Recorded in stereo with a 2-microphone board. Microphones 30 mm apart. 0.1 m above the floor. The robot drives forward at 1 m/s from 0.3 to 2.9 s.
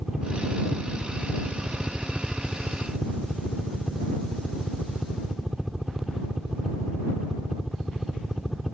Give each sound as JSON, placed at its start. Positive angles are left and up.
{"t": 0.0, "sound": "a helicopter", "side_deg": -5}